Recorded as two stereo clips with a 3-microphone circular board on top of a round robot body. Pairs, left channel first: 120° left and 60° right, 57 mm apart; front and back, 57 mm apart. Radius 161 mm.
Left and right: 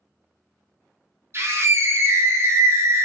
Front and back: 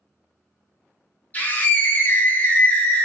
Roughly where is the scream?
Ahead right.